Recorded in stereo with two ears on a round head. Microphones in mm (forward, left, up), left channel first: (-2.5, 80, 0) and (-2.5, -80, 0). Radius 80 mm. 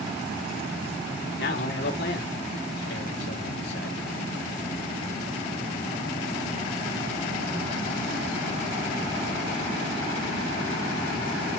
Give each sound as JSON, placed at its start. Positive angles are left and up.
{"t": 1.4, "sound": "a man speaking", "side_deg": 65, "distance_m": 3.5}